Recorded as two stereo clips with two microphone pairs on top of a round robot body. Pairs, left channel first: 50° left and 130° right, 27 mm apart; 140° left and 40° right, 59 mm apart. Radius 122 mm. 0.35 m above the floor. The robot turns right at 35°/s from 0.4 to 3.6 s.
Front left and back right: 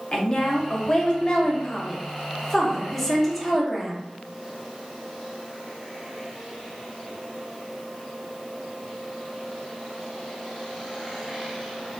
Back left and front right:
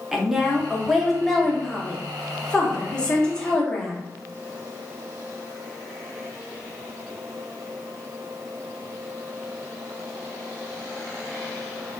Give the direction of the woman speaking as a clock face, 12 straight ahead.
10 o'clock.